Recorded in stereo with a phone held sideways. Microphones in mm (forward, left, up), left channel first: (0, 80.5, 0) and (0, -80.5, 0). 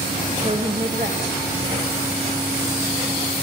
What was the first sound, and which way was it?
A woman speaking, 30° right (ahead or behind).